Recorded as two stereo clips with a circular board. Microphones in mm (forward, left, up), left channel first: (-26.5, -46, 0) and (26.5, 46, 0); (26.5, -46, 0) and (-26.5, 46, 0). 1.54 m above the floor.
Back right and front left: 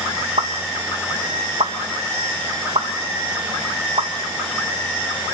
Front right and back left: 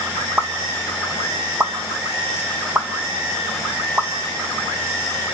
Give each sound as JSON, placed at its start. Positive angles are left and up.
{"t": 0.4, "sound": "a pop", "azimuth_deg": 50, "distance_m": 1.8}